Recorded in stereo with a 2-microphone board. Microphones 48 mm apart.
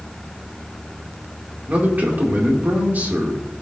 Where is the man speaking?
35° right (ahead or behind), 2 m.